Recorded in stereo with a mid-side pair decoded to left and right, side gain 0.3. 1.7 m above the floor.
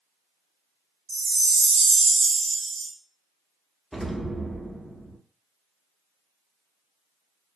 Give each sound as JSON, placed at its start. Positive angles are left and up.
{"t": 1.1, "sound": "a chime", "azimuth_deg": -55, "distance_m": 0.5}
{"t": 3.9, "sound": "an explosion", "azimuth_deg": -10, "distance_m": 0.7}